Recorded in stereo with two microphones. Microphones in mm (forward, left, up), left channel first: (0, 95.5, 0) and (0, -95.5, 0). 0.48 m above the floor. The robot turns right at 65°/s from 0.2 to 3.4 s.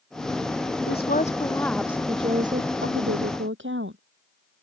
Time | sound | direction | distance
0.9 | a woman speaking | 120° left | ?